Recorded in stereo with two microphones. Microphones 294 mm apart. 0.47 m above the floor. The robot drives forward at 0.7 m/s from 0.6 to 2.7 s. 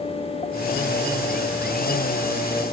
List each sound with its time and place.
Only background noise.